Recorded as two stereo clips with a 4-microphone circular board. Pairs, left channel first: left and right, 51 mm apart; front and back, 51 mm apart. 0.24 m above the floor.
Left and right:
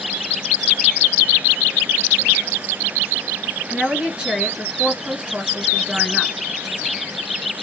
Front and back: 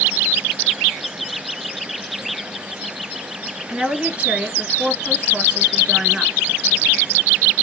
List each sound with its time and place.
3.7 s a woman speaking: 140° right, 1.8 m